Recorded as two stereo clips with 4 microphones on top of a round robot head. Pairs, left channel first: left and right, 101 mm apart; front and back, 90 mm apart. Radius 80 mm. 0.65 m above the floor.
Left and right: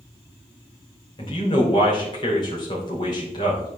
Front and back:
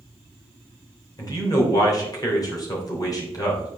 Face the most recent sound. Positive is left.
turn(degrees=45)